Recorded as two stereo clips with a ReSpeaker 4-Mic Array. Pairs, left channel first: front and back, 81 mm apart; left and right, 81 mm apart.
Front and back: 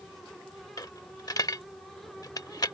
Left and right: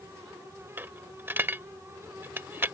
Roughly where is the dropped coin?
Ahead right.